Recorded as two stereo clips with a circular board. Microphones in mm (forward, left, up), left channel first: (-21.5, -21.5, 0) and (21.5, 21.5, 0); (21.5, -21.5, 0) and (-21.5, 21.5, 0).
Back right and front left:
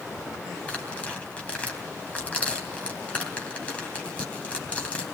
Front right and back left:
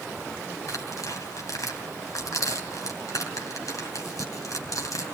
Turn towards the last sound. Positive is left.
turn(degrees=-70)